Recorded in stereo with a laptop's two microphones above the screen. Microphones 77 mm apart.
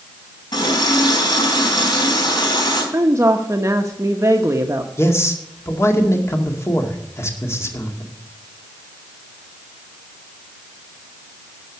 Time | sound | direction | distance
0.5 | a running tap | 70° left (ahead or behind) | 5 m
2.9 | a woman speaking | 40° right (ahead or behind) | 0.9 m
5.0 | a man speaking | 35° left (ahead or behind) | 2 m